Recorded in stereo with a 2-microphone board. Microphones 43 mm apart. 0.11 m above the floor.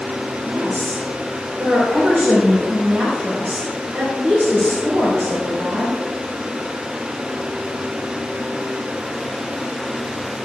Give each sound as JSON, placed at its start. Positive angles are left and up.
{"t": 0.5, "sound": "a woman speaking", "side_deg": -30, "distance_m": 4.5}